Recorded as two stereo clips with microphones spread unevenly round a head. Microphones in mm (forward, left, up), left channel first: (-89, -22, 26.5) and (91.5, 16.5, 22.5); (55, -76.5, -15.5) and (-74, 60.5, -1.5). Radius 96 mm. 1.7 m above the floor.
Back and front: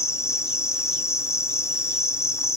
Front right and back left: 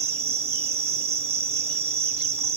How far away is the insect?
About 0.8 m.